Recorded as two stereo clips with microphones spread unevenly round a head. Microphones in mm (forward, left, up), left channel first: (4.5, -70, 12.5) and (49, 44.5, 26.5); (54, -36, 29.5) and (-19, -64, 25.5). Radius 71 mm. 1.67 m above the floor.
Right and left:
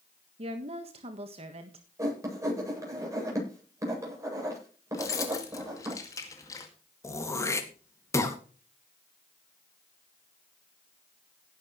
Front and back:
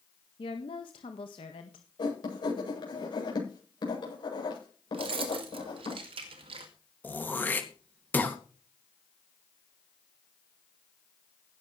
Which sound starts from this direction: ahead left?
A woman speaking, at 0.4 s.